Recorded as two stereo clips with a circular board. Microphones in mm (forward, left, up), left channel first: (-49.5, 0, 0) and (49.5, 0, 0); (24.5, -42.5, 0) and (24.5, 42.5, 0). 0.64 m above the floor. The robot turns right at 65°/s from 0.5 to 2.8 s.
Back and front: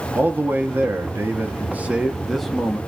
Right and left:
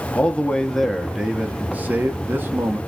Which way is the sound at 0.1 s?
35° right.